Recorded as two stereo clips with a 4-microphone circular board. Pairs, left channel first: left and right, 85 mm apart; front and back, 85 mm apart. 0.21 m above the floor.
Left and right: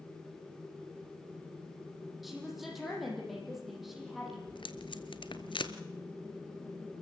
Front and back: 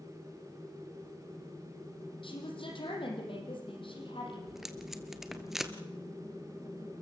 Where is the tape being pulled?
95° left, 1.3 m.